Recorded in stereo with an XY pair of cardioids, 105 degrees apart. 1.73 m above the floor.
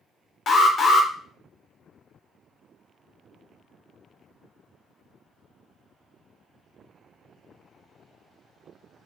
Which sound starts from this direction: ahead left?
An alarm, at 0.5 s.